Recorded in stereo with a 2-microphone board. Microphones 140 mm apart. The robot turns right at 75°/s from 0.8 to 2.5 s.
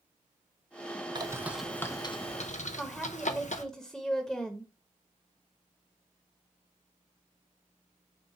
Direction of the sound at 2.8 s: 5° left (ahead or behind).